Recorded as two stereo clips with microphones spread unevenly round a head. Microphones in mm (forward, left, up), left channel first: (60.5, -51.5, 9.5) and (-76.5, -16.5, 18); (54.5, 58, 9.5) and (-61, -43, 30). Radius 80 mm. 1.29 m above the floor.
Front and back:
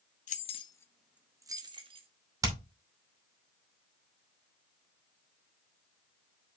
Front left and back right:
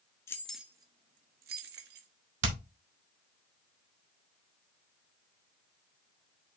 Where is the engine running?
I don't hear an engine running.